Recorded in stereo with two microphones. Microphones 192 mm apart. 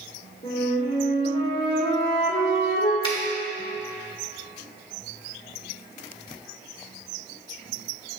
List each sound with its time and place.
0.4 s a flute: 60° left (ahead or behind), 2 m
3.0 s a finger snap: 25° left (ahead or behind), 1.5 m